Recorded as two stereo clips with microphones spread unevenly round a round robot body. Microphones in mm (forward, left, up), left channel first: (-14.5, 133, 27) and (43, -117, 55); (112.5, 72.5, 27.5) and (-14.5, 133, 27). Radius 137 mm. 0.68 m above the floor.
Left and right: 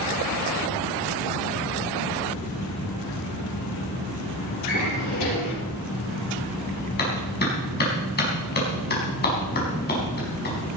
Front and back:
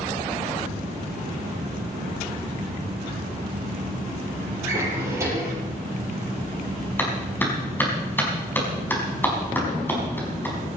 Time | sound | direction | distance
4.6 | a drawer | 85° left | 7 m
7.0 | a clap | 50° left | 5 m